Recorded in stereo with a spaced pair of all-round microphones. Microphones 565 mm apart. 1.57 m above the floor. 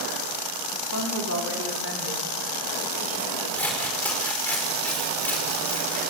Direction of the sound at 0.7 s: 30° right (ahead or behind).